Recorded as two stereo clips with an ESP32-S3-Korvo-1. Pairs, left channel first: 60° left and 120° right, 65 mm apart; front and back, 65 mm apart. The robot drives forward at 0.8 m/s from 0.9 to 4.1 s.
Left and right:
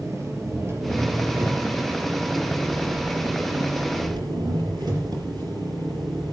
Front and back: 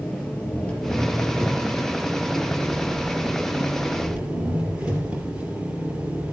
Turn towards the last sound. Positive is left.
turn(degrees=-105)